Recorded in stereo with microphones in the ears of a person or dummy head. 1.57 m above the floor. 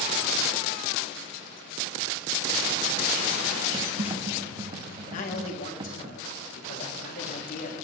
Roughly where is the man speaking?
Left.